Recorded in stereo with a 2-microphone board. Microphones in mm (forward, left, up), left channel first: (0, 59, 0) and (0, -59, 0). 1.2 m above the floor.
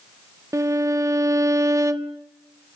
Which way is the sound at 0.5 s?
25° right (ahead or behind).